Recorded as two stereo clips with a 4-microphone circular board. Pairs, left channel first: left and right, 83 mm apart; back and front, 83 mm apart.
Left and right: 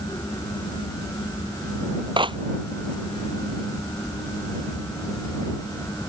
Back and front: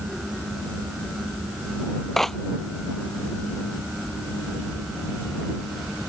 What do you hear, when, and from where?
2.2 s a clap: 95° right